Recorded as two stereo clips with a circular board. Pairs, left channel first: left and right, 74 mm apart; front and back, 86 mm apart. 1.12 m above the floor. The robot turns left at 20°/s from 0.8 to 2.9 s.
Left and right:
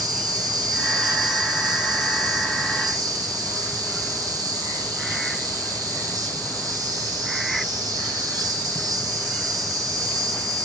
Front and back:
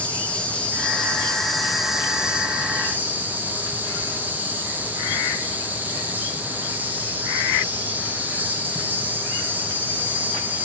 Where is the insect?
70° right, 1.5 m; by 10.6 s 115° right, 1.5 m.